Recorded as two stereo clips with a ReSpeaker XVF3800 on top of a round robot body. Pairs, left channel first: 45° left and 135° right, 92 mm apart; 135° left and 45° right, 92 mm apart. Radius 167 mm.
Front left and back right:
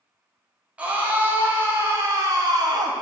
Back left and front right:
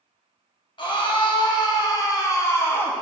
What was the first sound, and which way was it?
A scream, 150° left.